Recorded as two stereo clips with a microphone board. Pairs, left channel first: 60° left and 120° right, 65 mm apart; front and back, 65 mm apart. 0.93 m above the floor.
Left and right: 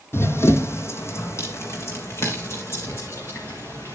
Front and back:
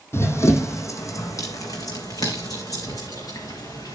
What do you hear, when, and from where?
0.1 s running footsteps: 30° left, 1.3 m; by 4.0 s 15° left, 4 m